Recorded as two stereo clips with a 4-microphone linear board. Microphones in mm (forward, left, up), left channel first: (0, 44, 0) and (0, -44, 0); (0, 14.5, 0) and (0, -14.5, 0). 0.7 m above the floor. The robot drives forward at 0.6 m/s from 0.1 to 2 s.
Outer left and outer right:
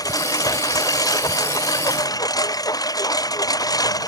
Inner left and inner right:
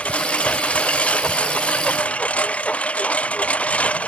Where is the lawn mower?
45° left (ahead or behind).